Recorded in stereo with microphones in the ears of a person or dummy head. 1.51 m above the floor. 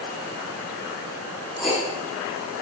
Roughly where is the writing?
Left.